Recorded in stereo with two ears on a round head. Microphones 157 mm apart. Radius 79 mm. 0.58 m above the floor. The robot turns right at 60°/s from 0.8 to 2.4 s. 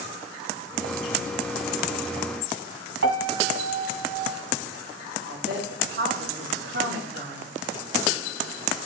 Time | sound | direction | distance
3.0 | a piano | 80° right | 1.7 m
5.3 | a woman speaking | 75° right (ahead or behind) | 3.5 m